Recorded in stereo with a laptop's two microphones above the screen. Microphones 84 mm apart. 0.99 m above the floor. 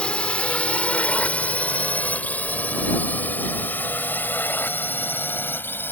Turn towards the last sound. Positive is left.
turn(degrees=25)  # may be behind; listen again after turning